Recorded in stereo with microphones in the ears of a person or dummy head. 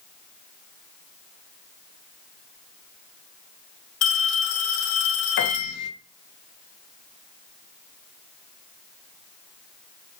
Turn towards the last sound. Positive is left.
turn(degrees=50)  # may be behind; listen again after turning